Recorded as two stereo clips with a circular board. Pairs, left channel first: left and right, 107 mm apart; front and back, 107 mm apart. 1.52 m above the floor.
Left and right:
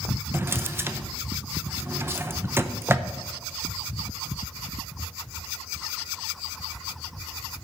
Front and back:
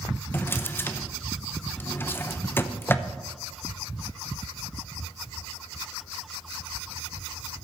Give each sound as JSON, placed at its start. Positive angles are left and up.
{"t": 0.3, "sound": "a drawer", "azimuth_deg": -50, "distance_m": 0.6}